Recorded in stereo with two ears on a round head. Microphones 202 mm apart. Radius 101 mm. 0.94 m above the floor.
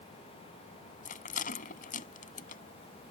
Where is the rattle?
40° left (ahead or behind).